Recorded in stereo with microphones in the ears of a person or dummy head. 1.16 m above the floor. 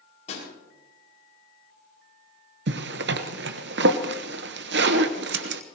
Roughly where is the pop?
Left.